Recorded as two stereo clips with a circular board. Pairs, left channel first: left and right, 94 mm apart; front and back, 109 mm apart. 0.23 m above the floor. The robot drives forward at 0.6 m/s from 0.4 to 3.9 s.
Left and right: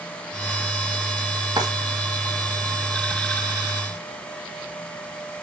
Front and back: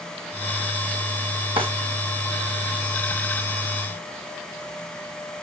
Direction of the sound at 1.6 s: 135° right.